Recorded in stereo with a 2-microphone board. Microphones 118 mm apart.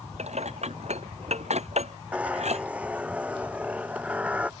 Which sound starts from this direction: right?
Dishes clattering, at 0.2 s.